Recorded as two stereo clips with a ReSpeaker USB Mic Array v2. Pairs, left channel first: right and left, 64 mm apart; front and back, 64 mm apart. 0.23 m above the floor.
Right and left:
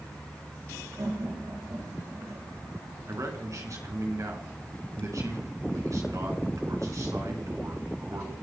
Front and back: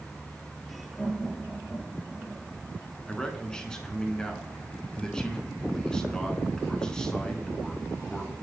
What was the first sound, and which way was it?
Laughter, 70° left.